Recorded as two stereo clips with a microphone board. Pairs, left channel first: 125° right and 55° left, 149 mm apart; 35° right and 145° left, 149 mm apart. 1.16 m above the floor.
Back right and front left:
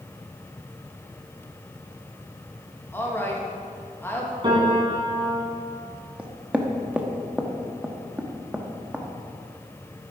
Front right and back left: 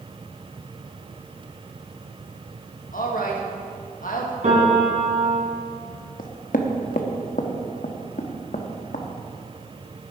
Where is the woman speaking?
50° right, 1.7 m.